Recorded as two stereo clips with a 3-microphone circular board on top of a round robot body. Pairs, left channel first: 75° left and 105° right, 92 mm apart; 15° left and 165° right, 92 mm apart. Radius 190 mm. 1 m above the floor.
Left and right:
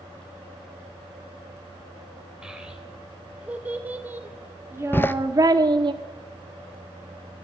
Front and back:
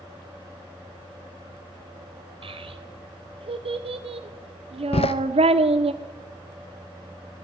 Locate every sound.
2.4 s a child speaking: 170° left, 3 m; by 5.9 s 145° right, 1.1 m
4.9 s a door slam: 5° left, 0.7 m